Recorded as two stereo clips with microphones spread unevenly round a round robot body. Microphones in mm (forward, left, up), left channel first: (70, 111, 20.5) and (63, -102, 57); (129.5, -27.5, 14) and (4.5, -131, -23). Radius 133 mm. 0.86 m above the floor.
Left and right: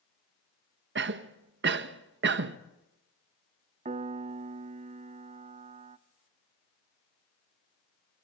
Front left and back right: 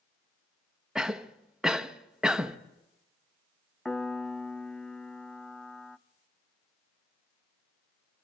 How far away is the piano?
About 0.5 m.